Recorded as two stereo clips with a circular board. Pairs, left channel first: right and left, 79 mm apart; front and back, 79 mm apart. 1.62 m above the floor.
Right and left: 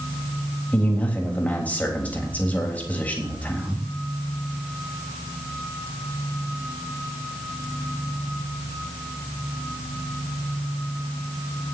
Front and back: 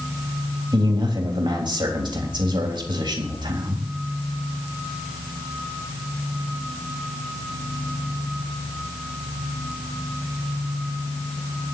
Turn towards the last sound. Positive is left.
turn(degrees=-160)